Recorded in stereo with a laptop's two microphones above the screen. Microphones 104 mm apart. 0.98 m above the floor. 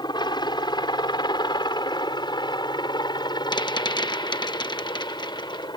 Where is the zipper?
I don't hear a zipper.